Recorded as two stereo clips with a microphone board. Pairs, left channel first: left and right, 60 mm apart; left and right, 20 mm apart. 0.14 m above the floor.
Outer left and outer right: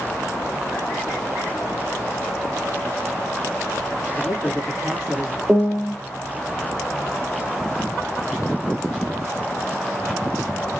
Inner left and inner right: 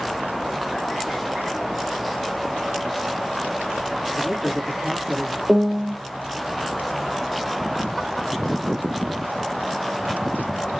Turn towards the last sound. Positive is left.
turn(degrees=-15)  # may be behind; listen again after turning